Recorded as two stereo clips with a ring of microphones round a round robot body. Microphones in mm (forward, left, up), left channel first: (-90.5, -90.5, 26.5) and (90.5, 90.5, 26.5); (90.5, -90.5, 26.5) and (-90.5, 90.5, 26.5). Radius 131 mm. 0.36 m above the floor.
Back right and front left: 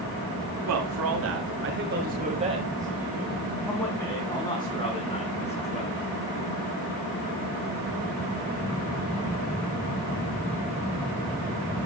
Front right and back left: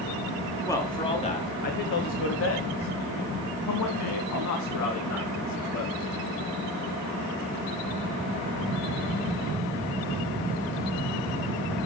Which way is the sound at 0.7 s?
35° left.